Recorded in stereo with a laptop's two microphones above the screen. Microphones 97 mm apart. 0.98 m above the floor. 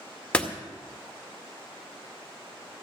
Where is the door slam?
10° left (ahead or behind), 2 m.